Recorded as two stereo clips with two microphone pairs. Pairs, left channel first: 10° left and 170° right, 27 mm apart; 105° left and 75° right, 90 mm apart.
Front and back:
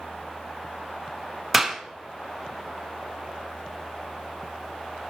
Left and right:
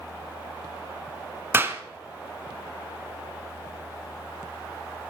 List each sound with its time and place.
1.5 s a clap: 90° right, 0.9 m